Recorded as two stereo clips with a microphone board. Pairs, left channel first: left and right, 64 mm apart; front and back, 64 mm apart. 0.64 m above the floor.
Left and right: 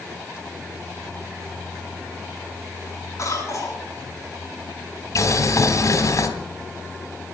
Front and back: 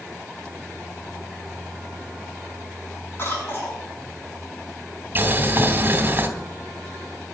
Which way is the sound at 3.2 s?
50° left.